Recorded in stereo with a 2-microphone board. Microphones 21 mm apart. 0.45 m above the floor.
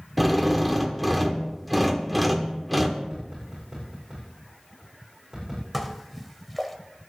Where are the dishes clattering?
5° left (ahead or behind), 1.2 m.